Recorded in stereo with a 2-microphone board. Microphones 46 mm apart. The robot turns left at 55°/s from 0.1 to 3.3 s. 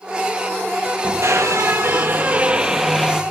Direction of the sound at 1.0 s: 75° right.